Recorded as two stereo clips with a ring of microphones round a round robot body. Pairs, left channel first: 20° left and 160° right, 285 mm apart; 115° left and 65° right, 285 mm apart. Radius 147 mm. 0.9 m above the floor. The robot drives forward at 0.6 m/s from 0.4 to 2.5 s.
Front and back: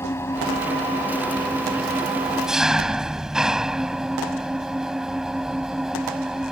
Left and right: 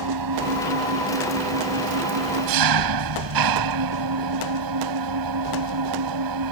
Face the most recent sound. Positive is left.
turn(degrees=-70)